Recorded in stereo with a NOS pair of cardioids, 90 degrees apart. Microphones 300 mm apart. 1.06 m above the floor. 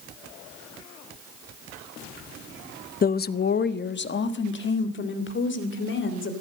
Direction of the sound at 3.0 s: 30° left.